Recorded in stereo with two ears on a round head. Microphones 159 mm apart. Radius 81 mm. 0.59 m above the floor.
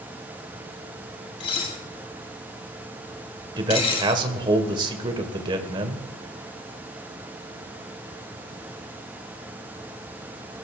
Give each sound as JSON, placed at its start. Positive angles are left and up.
{"t": 1.4, "sound": "dishes clattering", "side_deg": 30, "distance_m": 2.5}
{"t": 3.6, "sound": "a man speaking", "side_deg": -25, "distance_m": 1.8}